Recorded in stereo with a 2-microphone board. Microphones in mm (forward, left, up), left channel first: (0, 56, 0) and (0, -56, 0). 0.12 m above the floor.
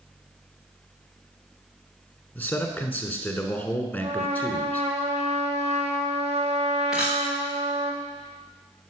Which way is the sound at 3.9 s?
70° right (ahead or behind).